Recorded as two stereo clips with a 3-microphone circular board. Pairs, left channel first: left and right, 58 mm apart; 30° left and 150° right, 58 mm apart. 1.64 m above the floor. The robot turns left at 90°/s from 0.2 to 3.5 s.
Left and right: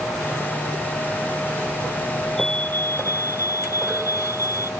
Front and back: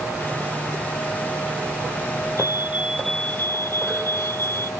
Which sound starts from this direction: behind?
A fire alarm, at 2.4 s.